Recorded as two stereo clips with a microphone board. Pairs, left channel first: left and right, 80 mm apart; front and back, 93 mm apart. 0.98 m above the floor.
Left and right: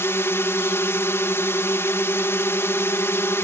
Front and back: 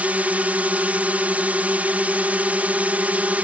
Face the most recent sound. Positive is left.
turn(degrees=120)